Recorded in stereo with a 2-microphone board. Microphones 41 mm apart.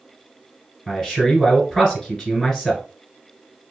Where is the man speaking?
10° left (ahead or behind), 1.4 m.